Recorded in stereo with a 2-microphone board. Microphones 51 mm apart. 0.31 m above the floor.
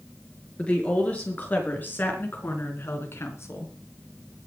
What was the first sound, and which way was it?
A woman speaking, 25° left (ahead or behind).